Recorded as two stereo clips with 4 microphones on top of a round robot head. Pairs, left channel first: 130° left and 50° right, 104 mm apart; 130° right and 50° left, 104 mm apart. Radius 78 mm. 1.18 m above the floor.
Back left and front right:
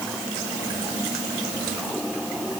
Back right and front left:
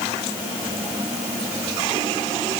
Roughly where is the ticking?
I don't hear ticking.